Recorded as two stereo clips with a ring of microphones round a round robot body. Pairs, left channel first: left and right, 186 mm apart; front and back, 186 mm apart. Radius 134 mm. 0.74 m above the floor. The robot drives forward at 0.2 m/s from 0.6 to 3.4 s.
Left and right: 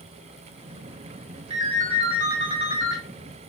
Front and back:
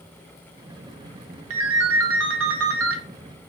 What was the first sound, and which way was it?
A ringtone, 160° right.